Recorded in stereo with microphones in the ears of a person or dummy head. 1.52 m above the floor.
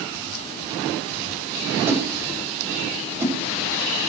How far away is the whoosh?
About 7 m.